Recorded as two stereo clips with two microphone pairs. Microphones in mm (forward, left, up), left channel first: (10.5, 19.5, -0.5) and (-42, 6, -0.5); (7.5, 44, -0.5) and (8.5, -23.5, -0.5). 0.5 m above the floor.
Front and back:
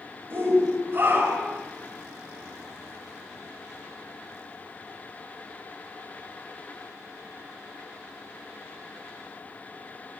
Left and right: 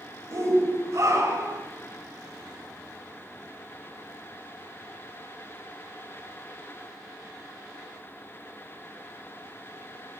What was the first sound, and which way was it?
A shout, 130° right.